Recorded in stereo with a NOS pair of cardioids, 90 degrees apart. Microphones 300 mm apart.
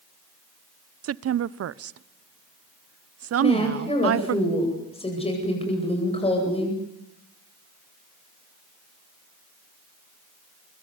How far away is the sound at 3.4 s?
About 8.5 m.